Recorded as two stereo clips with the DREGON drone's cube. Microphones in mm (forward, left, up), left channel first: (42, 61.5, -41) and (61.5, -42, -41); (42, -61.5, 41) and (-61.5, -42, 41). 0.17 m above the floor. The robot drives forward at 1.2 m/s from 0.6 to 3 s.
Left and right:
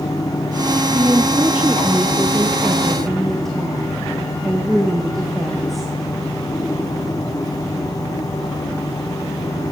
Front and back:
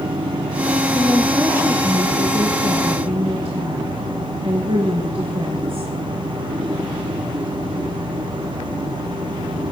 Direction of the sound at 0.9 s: 45° right.